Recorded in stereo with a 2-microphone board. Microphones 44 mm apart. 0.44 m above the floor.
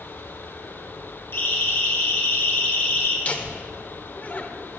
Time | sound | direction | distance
1.3 | a siren | 65° left (ahead or behind) | 4.5 m
3.2 | laughter | 35° left (ahead or behind) | 1.4 m